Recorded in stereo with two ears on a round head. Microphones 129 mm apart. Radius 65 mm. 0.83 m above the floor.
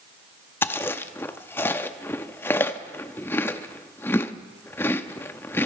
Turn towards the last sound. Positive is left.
turn(degrees=15)  # may be behind; listen again after turning